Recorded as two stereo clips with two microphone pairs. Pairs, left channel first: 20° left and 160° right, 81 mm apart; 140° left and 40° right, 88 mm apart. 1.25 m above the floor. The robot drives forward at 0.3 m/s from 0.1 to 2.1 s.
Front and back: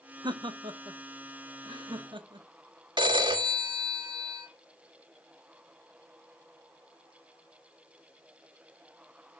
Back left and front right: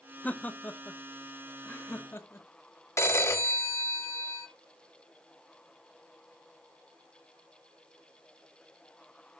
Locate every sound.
0.2 s laughter: 145° right, 0.9 m; by 2.5 s 160° right, 1.4 m
3.0 s a phone ringing: 165° right, 1.3 m